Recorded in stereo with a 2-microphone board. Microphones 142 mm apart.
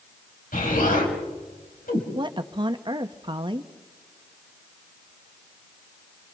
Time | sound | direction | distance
0.5 | an explosion | 75° left (ahead or behind) | 4.5 m
2.1 | a woman speaking | 35° right (ahead or behind) | 0.9 m